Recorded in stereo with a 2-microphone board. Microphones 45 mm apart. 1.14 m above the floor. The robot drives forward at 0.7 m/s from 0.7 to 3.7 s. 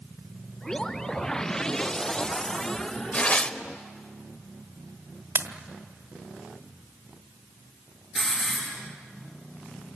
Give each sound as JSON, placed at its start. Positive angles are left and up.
{"t": 3.1, "sound": "tearing paper", "side_deg": 30, "distance_m": 1.0}
{"t": 5.3, "sound": "a pop", "side_deg": -65, "distance_m": 1.4}
{"t": 8.2, "sound": "a hiss", "side_deg": 0, "distance_m": 8.5}